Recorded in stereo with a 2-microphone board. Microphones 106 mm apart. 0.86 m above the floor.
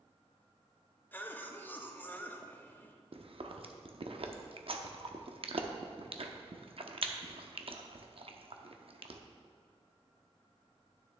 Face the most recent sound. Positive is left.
turn(degrees=-60)  # may be behind; listen again after turning